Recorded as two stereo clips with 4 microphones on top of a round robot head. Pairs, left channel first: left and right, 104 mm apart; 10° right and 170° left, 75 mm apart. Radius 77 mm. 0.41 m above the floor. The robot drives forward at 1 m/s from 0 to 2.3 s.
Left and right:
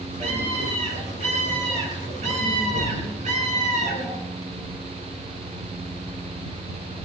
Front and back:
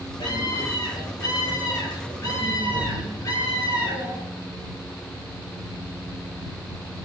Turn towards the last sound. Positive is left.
turn(degrees=-65)